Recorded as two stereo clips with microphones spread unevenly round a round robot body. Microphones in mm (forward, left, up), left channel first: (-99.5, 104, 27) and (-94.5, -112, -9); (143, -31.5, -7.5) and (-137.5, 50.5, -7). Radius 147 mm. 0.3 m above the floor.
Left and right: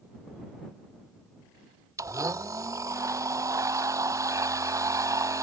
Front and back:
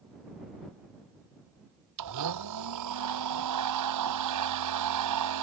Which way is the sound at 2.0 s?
165° right.